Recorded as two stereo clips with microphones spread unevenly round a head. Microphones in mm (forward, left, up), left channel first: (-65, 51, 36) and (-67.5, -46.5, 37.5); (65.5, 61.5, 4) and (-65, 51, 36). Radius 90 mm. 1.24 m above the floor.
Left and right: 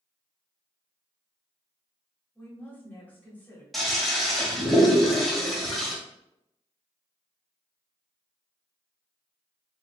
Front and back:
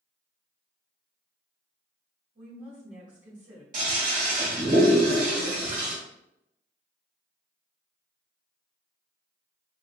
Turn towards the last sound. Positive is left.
turn(degrees=180)